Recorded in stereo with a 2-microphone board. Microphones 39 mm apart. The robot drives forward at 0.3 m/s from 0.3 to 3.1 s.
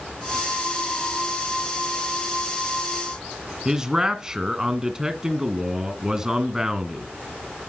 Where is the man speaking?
20° right (ahead or behind), 1.5 m.